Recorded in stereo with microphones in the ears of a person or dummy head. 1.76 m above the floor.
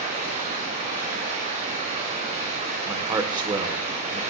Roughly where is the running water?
Right.